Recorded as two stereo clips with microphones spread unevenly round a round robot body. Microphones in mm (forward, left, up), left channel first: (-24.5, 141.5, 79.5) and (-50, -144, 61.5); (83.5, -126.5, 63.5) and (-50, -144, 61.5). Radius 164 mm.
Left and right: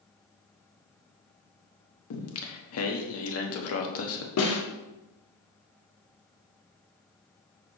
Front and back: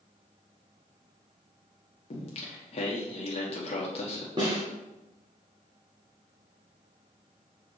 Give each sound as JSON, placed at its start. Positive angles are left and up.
{"t": 2.1, "sound": "singing", "azimuth_deg": 50, "distance_m": 1.1}
{"t": 4.4, "sound": "a snare drum", "azimuth_deg": 120, "distance_m": 1.6}